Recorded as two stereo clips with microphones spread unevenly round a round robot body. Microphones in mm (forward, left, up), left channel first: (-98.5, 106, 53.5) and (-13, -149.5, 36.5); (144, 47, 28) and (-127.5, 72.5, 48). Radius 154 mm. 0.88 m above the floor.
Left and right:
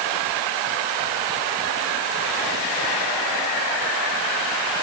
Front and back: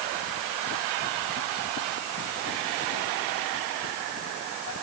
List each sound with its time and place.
Only background noise.